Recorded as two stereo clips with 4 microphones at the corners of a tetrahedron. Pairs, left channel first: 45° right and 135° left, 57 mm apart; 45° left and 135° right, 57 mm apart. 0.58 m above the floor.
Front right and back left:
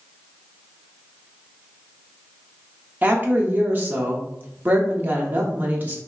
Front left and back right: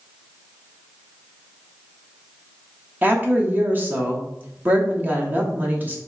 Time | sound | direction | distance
3.0 | a woman speaking | straight behind | 0.8 m